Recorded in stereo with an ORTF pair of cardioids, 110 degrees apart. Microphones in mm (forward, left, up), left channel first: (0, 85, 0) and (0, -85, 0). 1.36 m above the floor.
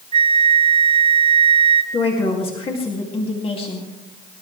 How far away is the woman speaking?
About 2.5 m.